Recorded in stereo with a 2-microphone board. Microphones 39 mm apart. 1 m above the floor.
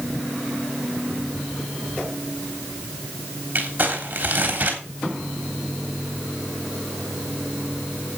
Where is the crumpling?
40° right (ahead or behind), 3.5 m.